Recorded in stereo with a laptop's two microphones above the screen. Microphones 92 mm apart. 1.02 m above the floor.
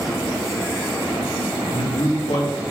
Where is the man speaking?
75° left (ahead or behind), 1.9 m.